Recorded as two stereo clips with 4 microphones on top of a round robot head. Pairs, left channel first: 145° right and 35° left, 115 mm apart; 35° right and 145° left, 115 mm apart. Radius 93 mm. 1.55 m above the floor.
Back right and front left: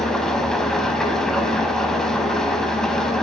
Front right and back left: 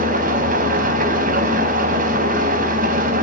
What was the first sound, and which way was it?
An engine running, 130° left.